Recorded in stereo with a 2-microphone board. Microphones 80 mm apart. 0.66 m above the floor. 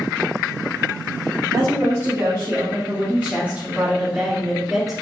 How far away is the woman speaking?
About 2 m.